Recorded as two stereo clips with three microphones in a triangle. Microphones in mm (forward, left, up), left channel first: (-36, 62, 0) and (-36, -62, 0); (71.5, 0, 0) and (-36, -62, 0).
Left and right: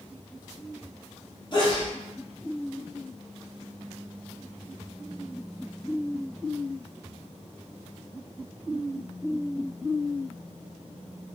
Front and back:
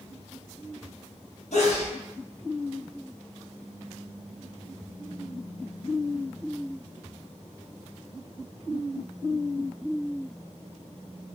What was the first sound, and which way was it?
A sneeze, 45° left.